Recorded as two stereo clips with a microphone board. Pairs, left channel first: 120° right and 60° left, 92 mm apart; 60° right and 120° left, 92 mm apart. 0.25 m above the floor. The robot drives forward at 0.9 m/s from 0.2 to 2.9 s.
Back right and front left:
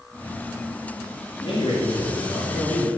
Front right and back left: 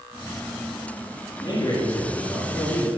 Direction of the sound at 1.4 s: 100° right.